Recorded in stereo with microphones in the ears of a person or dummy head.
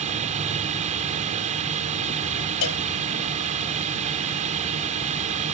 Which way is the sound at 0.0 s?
40° right (ahead or behind).